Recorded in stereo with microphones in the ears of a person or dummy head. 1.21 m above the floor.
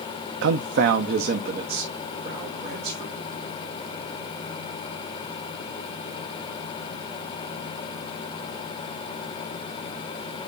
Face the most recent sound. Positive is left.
turn(degrees=-40)  # may be behind; listen again after turning